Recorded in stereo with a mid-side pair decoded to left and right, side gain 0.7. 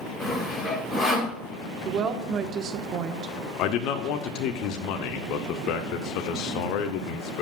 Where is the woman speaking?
40° right, 1.3 m.